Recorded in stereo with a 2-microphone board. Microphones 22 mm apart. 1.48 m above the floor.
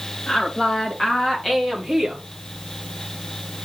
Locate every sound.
0.3 s a woman speaking: 40° left (ahead or behind), 3 m; by 2.2 s 20° right (ahead or behind), 1.4 m